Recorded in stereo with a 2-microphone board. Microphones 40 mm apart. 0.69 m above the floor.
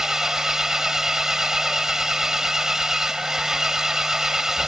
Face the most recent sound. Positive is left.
turn(degrees=-15)  # may be behind; listen again after turning